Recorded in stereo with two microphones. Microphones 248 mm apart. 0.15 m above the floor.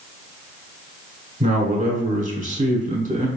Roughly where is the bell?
I don't hear a bell.